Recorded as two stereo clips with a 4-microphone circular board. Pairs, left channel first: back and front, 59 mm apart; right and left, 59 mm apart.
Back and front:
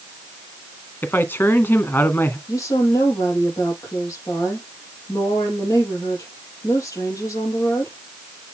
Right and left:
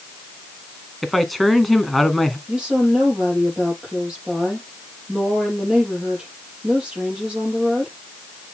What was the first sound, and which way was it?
A man speaking, straight behind.